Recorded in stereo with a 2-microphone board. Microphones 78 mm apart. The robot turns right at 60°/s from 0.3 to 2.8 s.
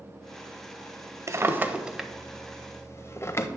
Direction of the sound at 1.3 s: 40° right (ahead or behind).